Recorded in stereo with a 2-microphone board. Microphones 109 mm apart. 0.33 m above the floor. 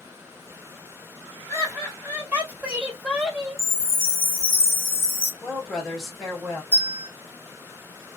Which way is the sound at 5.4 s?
Centre (ahead or behind).